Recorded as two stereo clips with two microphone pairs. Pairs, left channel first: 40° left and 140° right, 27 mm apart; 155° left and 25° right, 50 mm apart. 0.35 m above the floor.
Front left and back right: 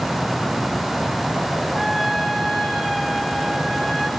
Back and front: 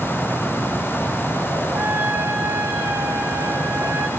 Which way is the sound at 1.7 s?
45° right.